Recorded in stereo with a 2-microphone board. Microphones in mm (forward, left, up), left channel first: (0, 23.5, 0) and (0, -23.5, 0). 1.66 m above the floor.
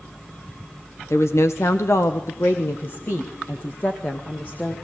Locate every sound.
1.1 s a woman speaking: 70° left (ahead or behind), 1.1 m; by 4.7 s 35° left (ahead or behind), 2 m